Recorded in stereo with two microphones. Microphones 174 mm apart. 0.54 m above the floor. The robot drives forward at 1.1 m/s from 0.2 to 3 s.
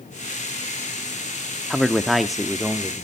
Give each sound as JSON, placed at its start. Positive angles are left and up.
{"t": 1.7, "sound": "a man speaking", "side_deg": 0, "distance_m": 0.8}